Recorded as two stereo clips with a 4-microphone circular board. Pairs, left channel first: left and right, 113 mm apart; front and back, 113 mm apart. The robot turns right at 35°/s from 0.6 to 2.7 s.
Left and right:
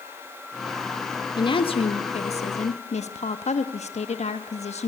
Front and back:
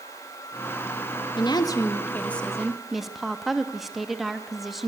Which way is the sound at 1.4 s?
45° left.